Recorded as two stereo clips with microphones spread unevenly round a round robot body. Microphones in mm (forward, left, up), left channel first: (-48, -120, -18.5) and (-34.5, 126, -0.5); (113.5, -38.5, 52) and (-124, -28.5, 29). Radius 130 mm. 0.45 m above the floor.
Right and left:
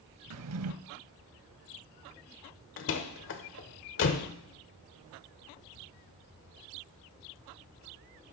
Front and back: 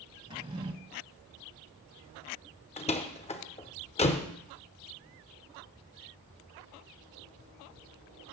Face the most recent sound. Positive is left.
turn(degrees=-65)